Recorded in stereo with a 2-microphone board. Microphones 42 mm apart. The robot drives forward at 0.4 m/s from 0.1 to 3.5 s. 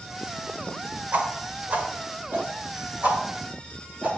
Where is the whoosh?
45° right (ahead or behind), 1.7 m; by 4.2 s 35° right (ahead or behind), 2 m.